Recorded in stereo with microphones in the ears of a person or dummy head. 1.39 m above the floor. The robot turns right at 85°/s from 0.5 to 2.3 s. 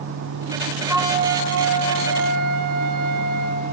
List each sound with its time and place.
0.9 s a flute: 165° right, 0.6 m; by 3.7 s 45° right, 0.6 m